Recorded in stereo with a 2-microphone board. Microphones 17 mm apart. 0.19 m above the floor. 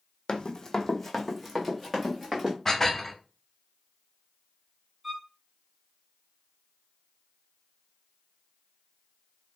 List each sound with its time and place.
0.3 s running footsteps: 55° left (ahead or behind), 0.6 m; by 2.5 s 20° right (ahead or behind), 1.7 m
2.6 s dishes clattering: 20° left (ahead or behind), 0.7 m
5.0 s a violin: 25° right (ahead or behind), 1.2 m